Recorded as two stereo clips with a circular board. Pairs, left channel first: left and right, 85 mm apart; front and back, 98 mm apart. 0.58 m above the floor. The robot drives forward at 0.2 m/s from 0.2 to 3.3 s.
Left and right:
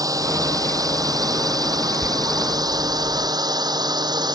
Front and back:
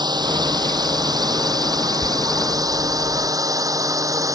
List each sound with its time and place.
0.0 s a drone: 135° right; by 4.3 s 125° right
1.9 s tearing paper: 140° right